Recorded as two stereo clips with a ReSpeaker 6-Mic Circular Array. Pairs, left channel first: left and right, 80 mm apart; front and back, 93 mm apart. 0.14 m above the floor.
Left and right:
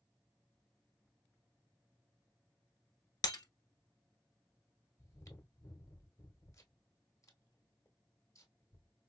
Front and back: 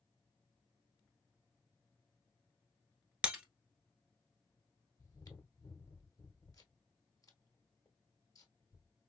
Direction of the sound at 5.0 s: 45° left.